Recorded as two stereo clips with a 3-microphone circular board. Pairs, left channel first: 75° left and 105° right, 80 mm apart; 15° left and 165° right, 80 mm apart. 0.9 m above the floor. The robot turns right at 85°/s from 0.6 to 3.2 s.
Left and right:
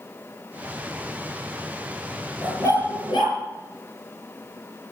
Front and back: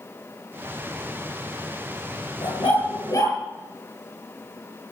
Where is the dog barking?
Straight ahead, 7.5 m; by 3.4 s 65° left, 7.5 m.